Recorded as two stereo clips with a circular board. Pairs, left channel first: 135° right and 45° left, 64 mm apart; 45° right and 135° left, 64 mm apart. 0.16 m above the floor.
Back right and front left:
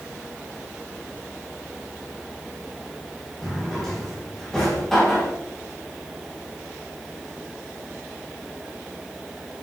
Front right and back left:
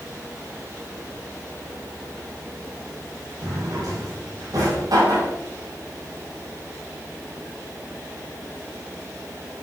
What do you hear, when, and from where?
3.4 s a drawer: 140° left, 3 m